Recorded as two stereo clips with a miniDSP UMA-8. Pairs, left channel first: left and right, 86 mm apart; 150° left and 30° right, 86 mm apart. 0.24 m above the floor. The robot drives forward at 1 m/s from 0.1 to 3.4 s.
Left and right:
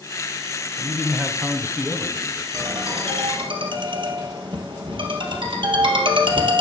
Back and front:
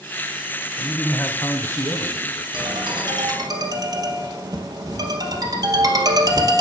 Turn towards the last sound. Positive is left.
turn(degrees=-75)